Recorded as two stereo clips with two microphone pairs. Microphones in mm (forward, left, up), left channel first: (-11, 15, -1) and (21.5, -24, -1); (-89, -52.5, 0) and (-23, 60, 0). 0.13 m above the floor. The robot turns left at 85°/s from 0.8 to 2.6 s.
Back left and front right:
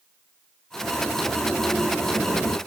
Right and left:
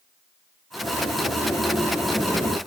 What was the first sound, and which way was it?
A sliding door, 100° right.